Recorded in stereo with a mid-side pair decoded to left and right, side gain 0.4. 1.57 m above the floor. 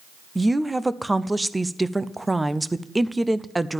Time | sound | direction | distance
0.3 | a woman speaking | 15° right | 0.6 m